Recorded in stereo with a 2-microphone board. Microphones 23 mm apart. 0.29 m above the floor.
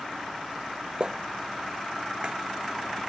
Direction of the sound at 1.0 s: 40° right (ahead or behind).